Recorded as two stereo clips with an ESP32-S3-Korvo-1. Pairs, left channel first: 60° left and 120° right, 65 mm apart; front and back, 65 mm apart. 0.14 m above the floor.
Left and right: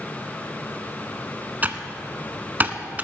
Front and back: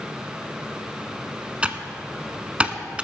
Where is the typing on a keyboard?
130° right, 0.7 m.